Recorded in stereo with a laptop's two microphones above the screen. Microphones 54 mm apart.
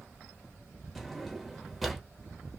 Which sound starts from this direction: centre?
A drawer, at 0.9 s.